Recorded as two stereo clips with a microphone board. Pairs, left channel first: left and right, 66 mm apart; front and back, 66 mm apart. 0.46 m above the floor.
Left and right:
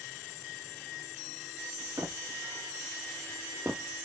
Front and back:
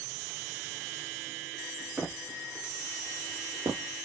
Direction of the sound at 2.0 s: 105° right.